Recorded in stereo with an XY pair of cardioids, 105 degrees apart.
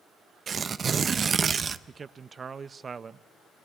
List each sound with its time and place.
0.5 s tearing paper: 40° right, 0.6 m
1.9 s a man speaking: 35° right, 0.6 m